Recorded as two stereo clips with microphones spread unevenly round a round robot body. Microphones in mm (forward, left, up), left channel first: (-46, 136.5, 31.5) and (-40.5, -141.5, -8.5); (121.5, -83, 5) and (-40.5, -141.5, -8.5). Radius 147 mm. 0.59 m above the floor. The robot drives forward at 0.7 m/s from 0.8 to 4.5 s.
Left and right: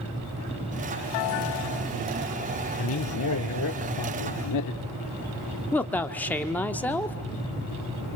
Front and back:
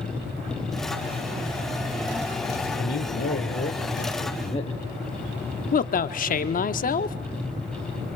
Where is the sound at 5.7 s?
Straight ahead, 1.2 m.